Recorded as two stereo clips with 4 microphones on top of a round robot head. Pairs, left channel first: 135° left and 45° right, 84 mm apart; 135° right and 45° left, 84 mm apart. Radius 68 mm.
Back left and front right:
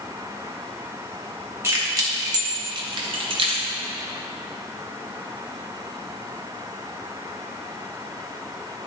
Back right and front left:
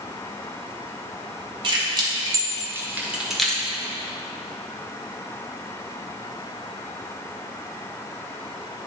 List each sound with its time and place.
1.6 s keys jangling: 10° left, 1.8 m; by 3.7 s 60° right, 1.3 m